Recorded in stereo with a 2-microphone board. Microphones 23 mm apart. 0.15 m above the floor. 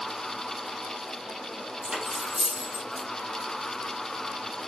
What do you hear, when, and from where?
1.8 s cutlery clinking: 35° right (ahead or behind), 3 m